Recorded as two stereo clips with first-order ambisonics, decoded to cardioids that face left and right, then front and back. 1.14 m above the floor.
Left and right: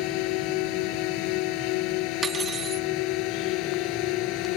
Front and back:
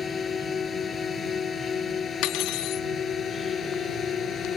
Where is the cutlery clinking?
20° right.